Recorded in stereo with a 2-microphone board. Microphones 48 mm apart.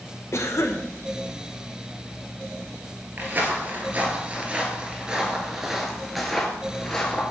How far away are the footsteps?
About 2 m.